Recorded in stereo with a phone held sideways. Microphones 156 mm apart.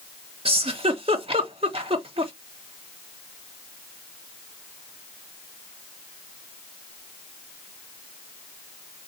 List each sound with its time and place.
0.5 s a giggle: 40° right (ahead or behind), 0.9 m